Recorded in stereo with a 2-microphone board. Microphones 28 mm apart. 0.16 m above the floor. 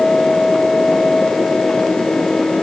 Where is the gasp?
No gasp in this recording.